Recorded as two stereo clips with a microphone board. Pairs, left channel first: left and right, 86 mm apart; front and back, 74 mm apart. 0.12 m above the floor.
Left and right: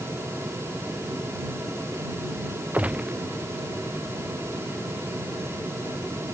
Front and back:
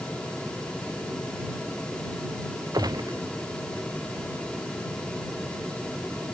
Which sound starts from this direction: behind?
A gunshot, at 2.7 s.